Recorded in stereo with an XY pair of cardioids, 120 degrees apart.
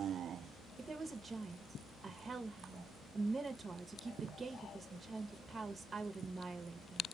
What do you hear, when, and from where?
0.8 s a woman speaking: 25° right, 0.7 m